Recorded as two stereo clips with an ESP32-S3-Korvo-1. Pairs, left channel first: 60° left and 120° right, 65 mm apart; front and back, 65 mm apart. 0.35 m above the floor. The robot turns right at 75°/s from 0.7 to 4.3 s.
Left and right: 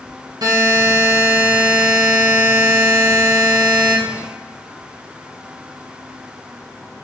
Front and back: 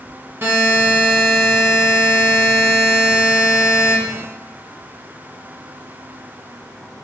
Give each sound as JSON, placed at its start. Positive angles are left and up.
{"t": 0.4, "sound": "a buzzer", "azimuth_deg": -125, "distance_m": 1.4}